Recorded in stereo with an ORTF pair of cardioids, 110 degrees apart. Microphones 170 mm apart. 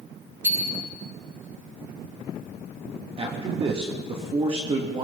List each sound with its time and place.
0.4 s a bicycle bell: 15° right, 6.5 m
3.2 s a man speaking: 35° right, 2.5 m